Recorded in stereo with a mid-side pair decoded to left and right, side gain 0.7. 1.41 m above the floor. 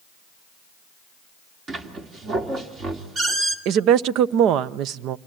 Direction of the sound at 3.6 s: 55° right.